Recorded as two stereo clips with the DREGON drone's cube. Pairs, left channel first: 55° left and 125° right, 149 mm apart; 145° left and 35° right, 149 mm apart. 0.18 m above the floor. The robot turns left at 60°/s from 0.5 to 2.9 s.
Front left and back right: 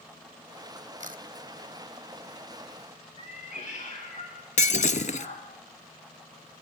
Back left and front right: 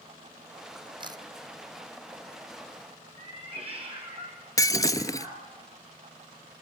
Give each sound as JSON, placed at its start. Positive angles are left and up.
{"t": 1.0, "sound": "a camera shutter", "azimuth_deg": -90, "distance_m": 1.1}
{"t": 3.2, "sound": "a cat meowing", "azimuth_deg": 15, "distance_m": 8.0}
{"t": 4.6, "sound": "breaking glass", "azimuth_deg": 80, "distance_m": 0.8}